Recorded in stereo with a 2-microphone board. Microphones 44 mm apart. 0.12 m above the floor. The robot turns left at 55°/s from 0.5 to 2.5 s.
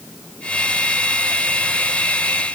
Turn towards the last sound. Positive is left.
No sound to turn to.